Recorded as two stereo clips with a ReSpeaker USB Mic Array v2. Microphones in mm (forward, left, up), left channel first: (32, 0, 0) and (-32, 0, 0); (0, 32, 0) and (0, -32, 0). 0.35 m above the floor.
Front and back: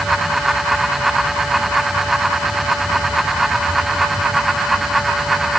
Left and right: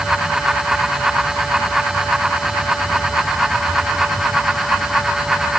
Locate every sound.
Only background noise.